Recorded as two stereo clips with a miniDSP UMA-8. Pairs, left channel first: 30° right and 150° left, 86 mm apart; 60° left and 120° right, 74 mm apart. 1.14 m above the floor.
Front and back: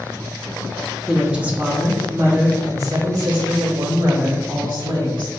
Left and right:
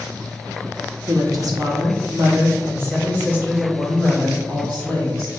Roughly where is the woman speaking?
Behind right.